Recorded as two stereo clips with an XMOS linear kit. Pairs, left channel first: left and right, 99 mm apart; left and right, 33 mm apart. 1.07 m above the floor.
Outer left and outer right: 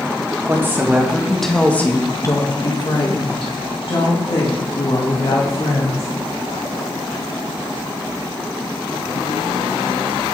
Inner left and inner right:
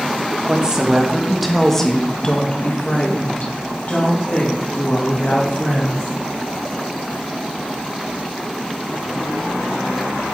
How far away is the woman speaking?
About 1.1 m.